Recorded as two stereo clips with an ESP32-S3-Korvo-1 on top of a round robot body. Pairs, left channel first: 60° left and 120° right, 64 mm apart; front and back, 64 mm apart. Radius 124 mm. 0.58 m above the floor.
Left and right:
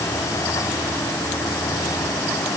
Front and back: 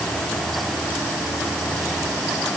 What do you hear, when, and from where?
Only background noise.